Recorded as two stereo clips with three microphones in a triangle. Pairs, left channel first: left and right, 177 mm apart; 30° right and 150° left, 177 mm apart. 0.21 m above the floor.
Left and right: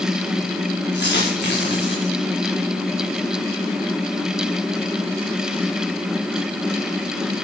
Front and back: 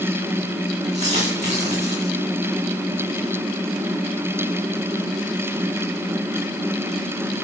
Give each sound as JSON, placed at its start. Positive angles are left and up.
{"t": 0.9, "sound": "a dropped coin", "azimuth_deg": 100, "distance_m": 8.0}